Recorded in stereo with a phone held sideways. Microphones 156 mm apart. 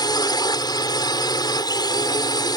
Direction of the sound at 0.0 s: 25° left (ahead or behind).